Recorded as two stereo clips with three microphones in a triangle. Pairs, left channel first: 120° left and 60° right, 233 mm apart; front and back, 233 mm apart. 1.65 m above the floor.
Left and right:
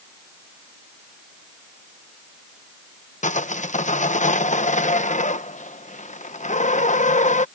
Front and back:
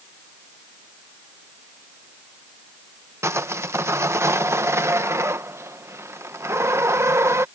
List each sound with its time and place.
3.2 s sawing: 115° left